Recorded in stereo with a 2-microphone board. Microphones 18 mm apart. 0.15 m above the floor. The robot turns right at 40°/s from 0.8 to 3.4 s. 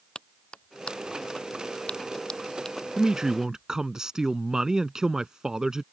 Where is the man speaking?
35° right (ahead or behind).